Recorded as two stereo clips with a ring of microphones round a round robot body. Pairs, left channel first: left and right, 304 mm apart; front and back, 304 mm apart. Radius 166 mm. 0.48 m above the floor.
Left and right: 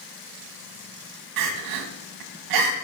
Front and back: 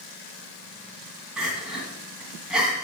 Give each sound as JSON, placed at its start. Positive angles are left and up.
{"t": 1.4, "sound": "crying", "azimuth_deg": -90, "distance_m": 1.5}